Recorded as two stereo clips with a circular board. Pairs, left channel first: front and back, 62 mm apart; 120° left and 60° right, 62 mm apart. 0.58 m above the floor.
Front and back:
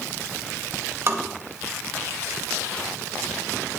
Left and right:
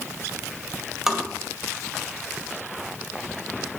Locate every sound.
1.1 s tapping: 140° right, 1.8 m